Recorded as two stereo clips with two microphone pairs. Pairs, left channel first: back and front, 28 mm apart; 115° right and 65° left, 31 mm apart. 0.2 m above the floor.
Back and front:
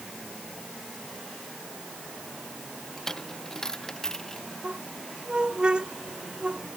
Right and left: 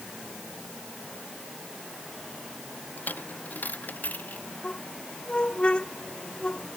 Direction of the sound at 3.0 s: 115° right.